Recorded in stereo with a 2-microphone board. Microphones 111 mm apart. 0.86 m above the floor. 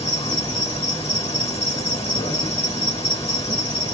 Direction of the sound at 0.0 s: 60° left (ahead or behind).